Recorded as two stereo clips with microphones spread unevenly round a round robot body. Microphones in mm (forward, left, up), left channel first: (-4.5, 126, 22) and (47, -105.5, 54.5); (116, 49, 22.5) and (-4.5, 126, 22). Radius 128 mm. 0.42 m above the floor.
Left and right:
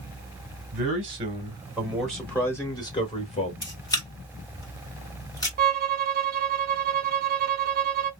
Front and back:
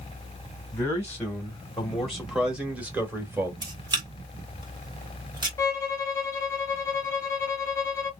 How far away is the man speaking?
About 1.4 m.